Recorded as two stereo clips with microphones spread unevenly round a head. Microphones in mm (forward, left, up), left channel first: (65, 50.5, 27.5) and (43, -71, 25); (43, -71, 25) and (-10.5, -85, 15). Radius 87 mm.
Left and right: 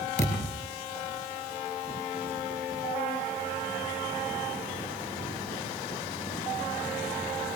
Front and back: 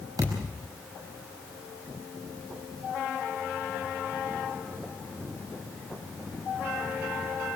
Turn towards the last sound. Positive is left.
turn(degrees=130)